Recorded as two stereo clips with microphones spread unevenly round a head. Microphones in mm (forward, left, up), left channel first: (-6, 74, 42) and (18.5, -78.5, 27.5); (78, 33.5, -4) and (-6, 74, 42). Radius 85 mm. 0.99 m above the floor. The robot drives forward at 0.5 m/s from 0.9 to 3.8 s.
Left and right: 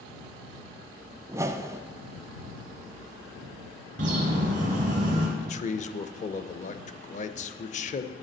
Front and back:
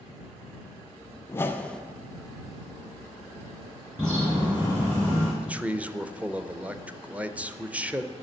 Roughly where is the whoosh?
Ahead.